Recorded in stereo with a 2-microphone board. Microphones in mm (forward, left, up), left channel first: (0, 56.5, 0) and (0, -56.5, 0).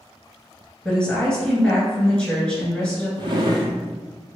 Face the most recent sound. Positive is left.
turn(degrees=-40)  # may be behind; listen again after turning